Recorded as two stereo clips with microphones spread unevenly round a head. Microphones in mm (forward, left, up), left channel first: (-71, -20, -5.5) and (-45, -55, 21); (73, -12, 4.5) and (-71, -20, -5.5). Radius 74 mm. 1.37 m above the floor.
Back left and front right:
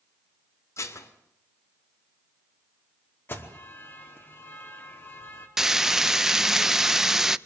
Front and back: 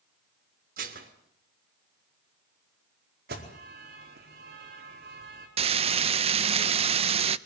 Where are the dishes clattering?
145° left, 2.5 m.